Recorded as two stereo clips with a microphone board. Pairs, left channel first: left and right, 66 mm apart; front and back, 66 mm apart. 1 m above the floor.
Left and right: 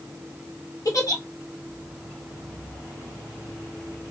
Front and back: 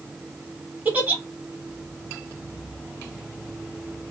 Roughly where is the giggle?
Behind left.